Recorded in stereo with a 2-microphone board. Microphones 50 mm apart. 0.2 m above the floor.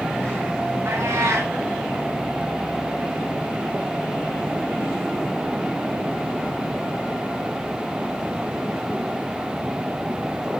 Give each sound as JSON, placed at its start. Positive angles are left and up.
{"t": 0.8, "sound": "a cat meowing", "side_deg": -60, "distance_m": 6.0}